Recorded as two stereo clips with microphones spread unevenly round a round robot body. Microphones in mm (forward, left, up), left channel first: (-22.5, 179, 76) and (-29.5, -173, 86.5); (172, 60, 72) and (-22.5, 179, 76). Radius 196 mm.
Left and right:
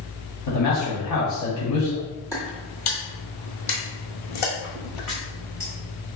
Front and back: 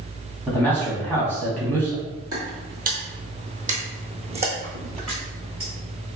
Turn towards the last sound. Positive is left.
turn(degrees=80)